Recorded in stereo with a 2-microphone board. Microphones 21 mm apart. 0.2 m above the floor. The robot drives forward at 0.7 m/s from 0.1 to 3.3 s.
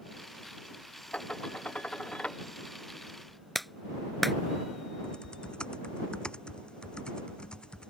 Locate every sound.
1.1 s dishes clattering: 80° left; by 2.4 s 75° left (ahead or behind)
3.5 s a clap: centre (ahead or behind)
5.0 s typing on a keyboard: 50° left (ahead or behind)